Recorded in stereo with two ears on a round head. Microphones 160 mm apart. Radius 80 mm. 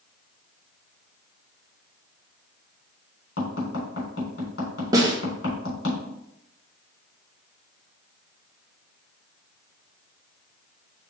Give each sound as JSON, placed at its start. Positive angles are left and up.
{"t": 3.4, "sound": "tapping", "side_deg": 65, "distance_m": 3.5}
{"t": 4.9, "sound": "a snare drum", "side_deg": -20, "distance_m": 1.1}